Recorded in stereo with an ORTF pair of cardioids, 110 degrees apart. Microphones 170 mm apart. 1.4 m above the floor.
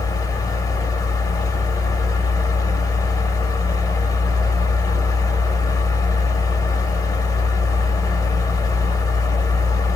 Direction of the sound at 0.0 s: 20° left.